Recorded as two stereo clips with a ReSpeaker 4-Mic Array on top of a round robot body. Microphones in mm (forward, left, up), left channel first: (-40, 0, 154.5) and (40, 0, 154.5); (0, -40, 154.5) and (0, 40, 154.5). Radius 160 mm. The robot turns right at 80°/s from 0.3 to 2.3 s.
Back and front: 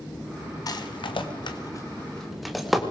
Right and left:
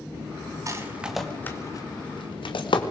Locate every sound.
0.7 s a rattle: 140° left, 2 m; by 2.8 s 90° right, 2 m